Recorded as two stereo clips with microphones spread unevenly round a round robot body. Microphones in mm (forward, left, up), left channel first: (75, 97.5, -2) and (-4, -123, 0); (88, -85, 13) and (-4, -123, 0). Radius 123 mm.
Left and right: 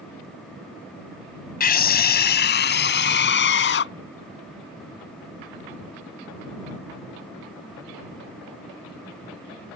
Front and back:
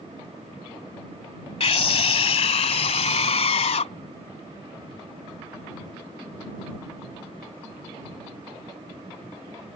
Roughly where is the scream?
Ahead left.